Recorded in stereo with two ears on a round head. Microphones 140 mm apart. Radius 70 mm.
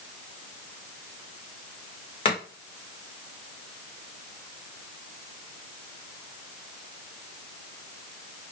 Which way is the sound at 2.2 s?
35° left (ahead or behind).